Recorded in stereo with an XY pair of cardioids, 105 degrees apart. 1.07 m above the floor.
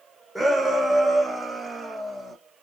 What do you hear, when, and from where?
0.3 s a shout: 15° right, 0.9 m; by 2.4 s 25° right, 1.9 m